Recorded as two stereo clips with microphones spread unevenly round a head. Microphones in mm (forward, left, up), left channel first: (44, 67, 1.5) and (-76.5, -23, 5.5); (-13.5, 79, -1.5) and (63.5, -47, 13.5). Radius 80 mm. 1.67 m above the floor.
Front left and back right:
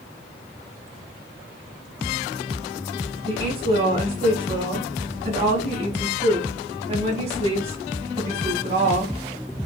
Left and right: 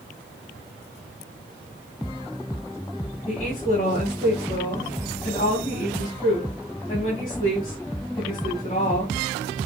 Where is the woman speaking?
175° left, 2.5 m.